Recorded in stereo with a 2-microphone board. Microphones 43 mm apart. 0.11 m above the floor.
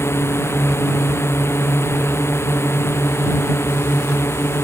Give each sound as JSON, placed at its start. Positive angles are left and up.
{"t": 0.0, "sound": "a drone", "side_deg": 80}